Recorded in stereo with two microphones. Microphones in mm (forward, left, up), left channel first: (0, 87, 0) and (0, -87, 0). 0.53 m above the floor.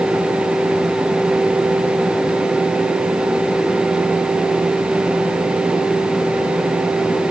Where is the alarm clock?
I don't hear an alarm clock.